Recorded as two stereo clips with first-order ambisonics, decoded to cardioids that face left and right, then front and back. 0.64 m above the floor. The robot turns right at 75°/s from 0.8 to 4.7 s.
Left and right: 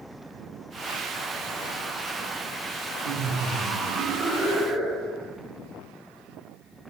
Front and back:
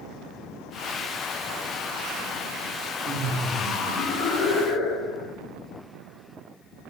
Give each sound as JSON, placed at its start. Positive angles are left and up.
{"t": 3.0, "sound": "laughter", "azimuth_deg": -115, "distance_m": 1.0}